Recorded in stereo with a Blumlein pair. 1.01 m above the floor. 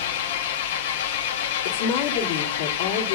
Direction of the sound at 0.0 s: 55° left.